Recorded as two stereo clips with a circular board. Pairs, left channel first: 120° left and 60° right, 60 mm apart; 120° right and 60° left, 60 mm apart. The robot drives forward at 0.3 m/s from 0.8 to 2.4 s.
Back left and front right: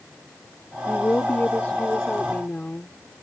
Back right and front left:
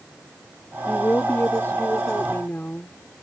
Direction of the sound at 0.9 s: 175° right.